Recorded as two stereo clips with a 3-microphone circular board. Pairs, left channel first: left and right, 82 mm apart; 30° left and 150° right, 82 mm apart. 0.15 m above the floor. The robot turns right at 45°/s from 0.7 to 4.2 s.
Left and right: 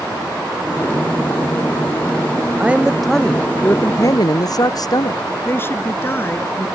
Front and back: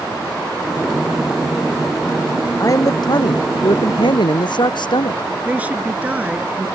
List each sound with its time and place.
2.6 s a man speaking: 20° right; by 5.2 s 50° left
5.5 s a woman speaking: 145° left